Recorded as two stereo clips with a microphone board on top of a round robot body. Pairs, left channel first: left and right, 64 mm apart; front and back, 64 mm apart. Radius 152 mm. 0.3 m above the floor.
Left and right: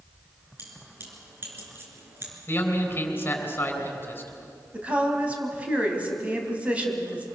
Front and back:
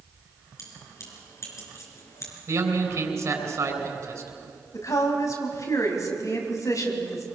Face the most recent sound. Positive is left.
turn(degrees=-20)